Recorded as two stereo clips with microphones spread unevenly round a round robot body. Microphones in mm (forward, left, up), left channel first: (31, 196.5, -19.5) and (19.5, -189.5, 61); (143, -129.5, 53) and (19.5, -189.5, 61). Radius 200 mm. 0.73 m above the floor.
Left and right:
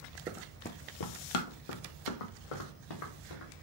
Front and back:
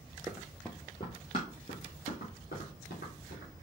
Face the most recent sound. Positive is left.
turn(degrees=85)